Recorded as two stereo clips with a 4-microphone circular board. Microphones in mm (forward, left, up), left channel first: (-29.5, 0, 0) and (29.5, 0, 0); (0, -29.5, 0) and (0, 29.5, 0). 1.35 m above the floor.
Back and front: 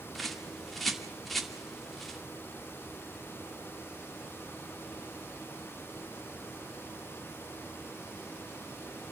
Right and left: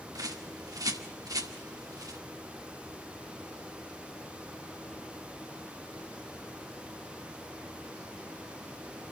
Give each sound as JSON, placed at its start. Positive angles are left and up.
{"t": 0.1, "sound": "a bird", "azimuth_deg": 95, "distance_m": 2.0}